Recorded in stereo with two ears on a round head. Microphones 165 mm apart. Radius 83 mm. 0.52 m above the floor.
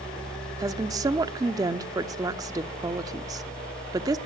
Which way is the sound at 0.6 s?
20° right (ahead or behind).